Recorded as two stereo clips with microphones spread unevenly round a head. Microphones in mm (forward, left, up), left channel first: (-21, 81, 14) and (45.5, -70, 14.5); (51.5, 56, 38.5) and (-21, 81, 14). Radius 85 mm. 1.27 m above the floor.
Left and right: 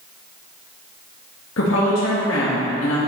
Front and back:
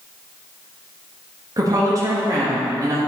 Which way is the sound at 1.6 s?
115° left.